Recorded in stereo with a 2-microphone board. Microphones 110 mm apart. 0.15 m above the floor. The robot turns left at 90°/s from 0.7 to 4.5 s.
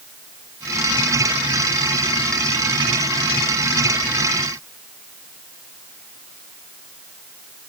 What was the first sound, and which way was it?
Only background noise.